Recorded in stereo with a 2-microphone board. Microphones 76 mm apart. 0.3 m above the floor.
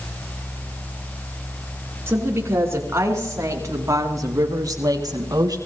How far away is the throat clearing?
I don't hear throat clearing.